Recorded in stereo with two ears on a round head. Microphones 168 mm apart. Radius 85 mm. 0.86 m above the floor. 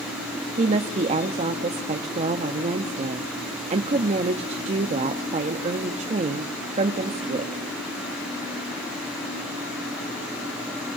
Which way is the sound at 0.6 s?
35° right (ahead or behind).